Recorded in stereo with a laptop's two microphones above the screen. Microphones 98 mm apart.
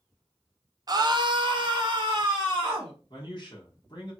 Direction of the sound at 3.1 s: 50° left (ahead or behind).